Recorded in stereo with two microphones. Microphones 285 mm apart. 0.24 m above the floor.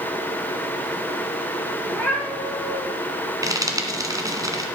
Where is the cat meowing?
5° left (ahead or behind), 4 m.